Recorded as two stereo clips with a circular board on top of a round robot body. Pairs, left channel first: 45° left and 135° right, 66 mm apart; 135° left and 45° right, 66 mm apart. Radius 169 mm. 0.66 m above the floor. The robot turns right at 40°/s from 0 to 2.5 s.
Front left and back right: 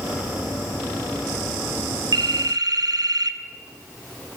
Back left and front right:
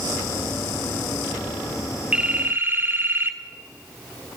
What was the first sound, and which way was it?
A phone ringing, 120° right.